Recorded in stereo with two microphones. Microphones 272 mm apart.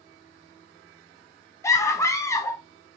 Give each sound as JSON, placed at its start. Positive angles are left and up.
{"t": 1.6, "sound": "a scream", "side_deg": 10, "distance_m": 1.0}